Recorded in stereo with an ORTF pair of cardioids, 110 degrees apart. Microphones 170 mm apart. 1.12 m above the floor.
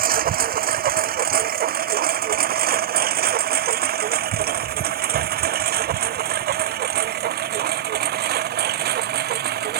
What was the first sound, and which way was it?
A lawn mower, 55° right.